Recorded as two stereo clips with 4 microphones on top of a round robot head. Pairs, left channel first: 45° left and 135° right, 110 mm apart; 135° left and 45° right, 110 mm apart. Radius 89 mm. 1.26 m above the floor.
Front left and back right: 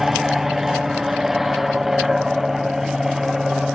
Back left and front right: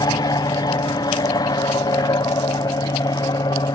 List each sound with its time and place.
0.0 s an aircraft: 140° left